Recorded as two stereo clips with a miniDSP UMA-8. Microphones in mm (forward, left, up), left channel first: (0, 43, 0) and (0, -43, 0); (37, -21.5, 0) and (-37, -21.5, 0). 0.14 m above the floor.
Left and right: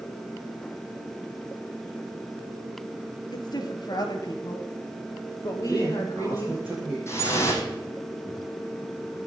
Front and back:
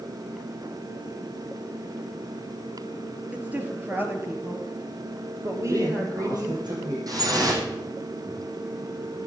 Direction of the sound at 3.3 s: 110° left.